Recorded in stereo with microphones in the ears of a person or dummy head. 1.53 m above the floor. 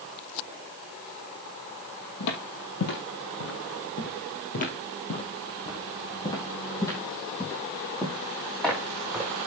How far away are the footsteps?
About 3 m.